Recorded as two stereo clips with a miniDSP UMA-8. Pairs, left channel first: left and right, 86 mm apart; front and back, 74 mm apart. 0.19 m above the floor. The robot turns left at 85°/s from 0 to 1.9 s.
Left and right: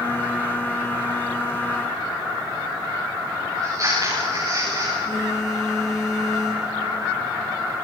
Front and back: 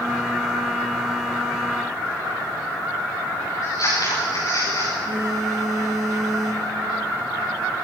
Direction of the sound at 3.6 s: 35° right.